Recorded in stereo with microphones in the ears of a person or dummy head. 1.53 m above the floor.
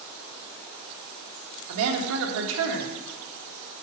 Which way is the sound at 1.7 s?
75° right (ahead or behind).